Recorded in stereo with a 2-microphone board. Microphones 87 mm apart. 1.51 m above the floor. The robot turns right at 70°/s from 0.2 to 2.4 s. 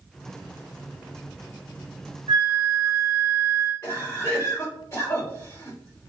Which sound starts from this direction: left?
A cough, at 3.8 s.